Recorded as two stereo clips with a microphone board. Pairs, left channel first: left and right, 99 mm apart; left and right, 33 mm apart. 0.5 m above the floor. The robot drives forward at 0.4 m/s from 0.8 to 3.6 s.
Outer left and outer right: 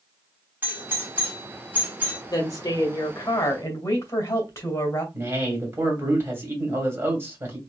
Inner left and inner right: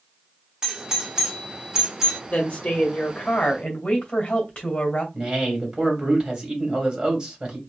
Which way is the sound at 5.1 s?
25° right (ahead or behind).